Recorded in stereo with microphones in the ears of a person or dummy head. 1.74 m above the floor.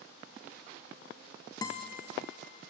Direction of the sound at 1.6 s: 20° left (ahead or behind).